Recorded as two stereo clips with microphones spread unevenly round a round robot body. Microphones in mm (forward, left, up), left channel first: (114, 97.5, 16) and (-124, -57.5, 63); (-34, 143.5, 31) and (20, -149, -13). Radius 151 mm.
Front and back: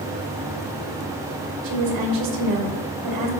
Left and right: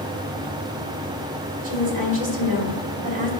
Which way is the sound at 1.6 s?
140° right.